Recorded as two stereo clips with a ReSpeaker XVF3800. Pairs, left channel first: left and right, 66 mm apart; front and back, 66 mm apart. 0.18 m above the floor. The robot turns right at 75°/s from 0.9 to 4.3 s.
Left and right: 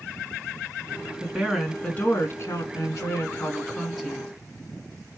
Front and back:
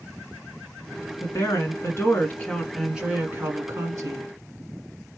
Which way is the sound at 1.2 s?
25° right.